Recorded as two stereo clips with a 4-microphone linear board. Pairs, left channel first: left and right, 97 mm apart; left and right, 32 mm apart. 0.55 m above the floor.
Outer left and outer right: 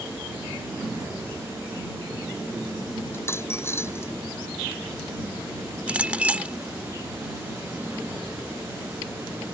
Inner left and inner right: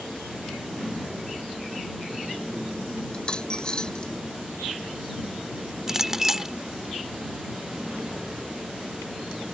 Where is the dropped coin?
25° left (ahead or behind).